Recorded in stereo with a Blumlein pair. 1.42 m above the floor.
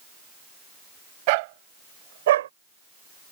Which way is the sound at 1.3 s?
45° right.